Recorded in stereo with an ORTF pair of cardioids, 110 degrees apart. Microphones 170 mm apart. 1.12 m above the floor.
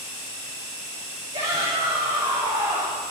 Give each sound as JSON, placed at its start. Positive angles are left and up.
{"t": 1.3, "sound": "a shout", "azimuth_deg": -45, "distance_m": 5.0}